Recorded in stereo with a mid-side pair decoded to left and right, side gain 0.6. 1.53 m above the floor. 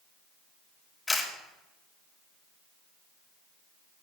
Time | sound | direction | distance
1.1 | a camera shutter | 15° left | 5.5 m